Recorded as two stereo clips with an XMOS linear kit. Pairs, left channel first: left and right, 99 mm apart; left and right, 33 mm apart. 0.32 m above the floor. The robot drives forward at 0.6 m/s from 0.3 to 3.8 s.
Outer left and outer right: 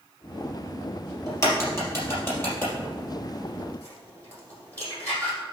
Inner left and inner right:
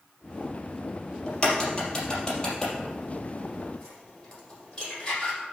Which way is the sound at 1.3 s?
30° left (ahead or behind).